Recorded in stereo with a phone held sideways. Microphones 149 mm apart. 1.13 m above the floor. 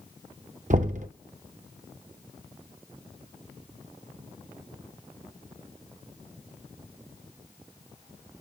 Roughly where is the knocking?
Right.